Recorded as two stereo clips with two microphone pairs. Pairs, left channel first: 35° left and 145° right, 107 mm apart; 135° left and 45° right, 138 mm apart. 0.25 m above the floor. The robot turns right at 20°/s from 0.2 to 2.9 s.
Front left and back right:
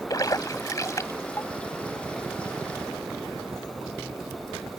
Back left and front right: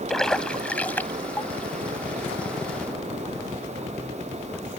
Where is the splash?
55° left; by 1.5 s 80° left.